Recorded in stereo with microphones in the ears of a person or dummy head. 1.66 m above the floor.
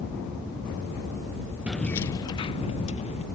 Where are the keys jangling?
Centre (ahead or behind); by 3.2 s 35° left (ahead or behind).